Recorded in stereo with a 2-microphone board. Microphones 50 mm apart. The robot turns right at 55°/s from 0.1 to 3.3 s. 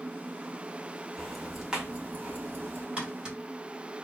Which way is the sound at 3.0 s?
25° right (ahead or behind).